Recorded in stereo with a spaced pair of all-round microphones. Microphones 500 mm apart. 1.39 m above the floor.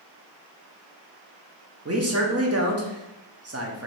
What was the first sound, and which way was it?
A man speaking, 30° right (ahead or behind).